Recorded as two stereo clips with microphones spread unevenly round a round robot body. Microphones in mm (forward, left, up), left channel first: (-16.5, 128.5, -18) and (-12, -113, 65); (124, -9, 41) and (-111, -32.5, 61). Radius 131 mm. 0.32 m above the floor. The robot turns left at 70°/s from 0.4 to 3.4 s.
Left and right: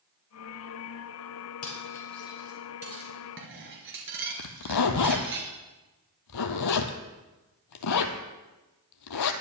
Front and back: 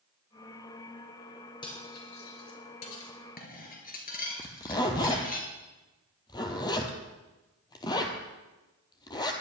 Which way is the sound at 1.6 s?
80° left.